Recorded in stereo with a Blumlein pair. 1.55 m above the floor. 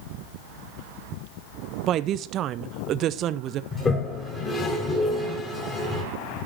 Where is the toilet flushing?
20° left, 3 m.